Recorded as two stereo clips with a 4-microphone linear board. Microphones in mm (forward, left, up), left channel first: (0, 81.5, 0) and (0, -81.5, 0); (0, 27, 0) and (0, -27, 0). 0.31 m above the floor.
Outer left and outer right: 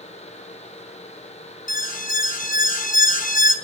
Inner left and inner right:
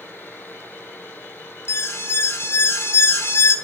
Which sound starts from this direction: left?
An alarm, at 1.7 s.